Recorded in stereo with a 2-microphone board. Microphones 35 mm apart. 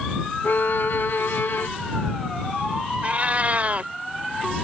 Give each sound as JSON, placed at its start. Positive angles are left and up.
{"t": 0.4, "sound": "a violin", "side_deg": 80}
{"t": 3.0, "sound": "a cat meowing", "side_deg": -40}